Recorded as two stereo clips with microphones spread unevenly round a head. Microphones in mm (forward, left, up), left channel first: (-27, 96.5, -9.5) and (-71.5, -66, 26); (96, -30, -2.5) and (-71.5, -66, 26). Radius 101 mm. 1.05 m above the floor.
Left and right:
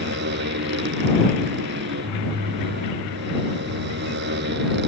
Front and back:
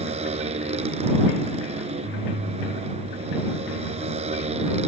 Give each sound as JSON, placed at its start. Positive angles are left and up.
{"t": 0.0, "sound": "a motorcycle", "azimuth_deg": -115}